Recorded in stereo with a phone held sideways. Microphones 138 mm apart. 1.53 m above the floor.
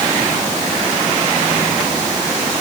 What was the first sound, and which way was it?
Only background noise.